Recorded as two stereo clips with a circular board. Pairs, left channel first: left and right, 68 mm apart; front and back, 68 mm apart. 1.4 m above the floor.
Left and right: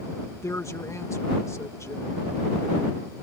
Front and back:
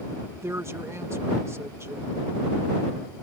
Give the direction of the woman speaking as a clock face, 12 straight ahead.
8 o'clock.